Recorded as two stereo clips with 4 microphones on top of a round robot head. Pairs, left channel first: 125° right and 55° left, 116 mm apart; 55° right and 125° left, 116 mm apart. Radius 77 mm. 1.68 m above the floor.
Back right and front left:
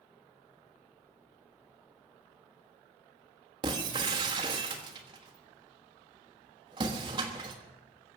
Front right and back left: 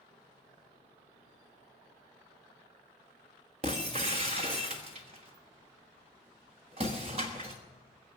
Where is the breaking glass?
95° left, 1.3 m.